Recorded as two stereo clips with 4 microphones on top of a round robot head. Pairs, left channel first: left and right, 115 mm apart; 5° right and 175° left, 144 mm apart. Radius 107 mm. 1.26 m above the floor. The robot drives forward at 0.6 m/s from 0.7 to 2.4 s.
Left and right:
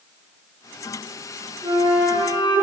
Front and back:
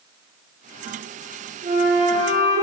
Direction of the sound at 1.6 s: 135° right.